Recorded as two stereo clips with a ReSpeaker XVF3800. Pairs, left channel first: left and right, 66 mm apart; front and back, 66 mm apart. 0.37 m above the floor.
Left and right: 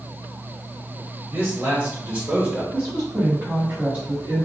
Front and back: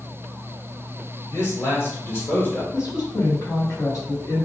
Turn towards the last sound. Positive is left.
turn(degrees=-25)